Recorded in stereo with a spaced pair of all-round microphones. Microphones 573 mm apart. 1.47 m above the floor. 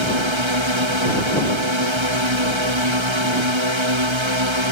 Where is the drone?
55° right (ahead or behind).